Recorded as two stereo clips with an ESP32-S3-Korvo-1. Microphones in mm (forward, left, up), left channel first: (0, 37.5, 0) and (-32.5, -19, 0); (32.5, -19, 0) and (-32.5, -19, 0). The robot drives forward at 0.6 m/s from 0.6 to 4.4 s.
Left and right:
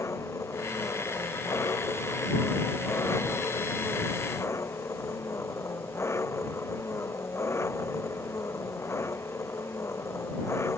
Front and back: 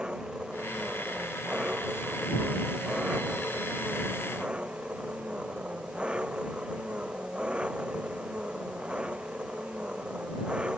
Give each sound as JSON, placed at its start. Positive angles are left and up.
{"t": 0.0, "sound": "an engine running", "azimuth_deg": 105}